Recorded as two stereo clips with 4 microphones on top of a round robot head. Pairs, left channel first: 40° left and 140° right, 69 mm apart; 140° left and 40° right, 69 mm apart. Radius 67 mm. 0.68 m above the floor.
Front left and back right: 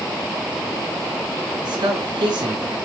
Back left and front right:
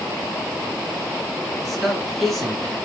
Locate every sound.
1.6 s a man speaking: 130° right, 8.5 m; by 2.8 s 135° right, 9.5 m